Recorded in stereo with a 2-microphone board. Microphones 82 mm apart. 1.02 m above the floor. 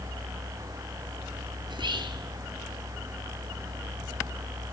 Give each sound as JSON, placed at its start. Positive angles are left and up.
{"t": 1.7, "sound": "whispering", "side_deg": -80, "distance_m": 3.0}